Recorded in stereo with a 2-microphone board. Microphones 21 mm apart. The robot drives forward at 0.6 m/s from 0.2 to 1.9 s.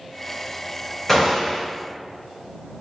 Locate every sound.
1.1 s a gunshot: 10° left (ahead or behind), 1.8 m